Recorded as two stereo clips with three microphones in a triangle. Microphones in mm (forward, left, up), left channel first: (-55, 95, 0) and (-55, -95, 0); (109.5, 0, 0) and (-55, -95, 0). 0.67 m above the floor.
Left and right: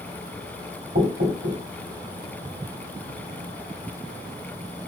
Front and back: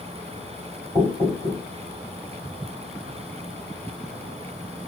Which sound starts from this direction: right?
Knocking, at 0.9 s.